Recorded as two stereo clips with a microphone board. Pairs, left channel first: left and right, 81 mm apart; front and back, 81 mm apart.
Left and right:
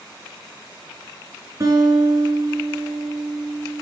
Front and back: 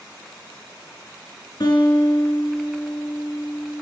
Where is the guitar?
40° right, 4 m.